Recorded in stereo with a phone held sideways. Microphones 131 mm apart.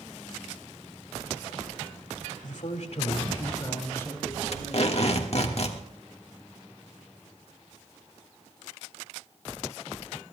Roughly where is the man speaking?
Left.